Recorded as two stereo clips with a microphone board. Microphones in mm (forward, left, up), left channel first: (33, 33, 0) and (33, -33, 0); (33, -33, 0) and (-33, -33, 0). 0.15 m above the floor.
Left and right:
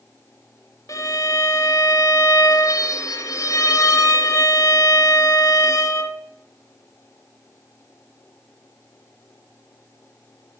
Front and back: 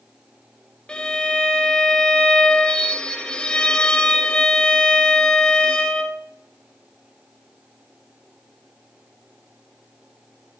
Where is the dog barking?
I don't hear a dog barking.